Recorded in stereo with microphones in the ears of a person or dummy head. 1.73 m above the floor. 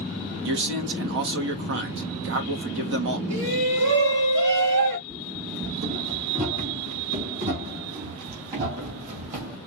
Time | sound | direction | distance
0.5 | a man speaking | 65° right (ahead or behind) | 1.4 m
3.3 | a shout | 65° right (ahead or behind) | 1.8 m
5.1 | running footsteps | 35° right (ahead or behind) | 5 m